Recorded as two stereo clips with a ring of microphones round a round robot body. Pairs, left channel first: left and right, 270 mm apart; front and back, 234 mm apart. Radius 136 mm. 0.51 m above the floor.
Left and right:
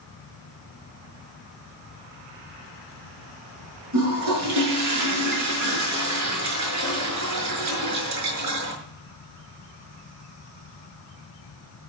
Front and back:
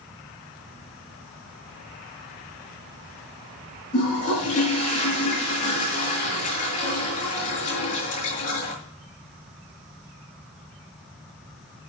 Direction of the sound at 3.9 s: 65° right.